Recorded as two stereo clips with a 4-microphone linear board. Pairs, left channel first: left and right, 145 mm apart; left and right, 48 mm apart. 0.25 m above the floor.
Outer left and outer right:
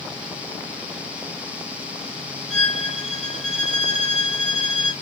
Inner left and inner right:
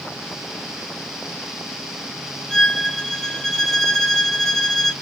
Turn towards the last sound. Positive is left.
turn(degrees=-5)  # may be behind; listen again after turning